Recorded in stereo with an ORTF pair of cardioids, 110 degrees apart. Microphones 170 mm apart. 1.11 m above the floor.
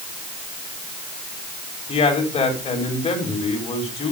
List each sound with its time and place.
1.9 s a man speaking: 40° left, 4 m